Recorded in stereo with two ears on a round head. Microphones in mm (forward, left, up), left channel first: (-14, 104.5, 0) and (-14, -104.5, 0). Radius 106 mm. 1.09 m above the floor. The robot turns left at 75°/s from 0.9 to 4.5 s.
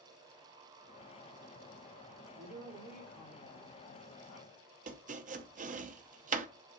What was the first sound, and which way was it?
A woman speaking, 130° right.